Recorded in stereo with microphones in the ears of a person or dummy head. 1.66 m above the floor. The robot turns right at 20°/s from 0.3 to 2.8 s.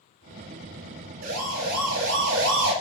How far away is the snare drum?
No snare drum in this recording.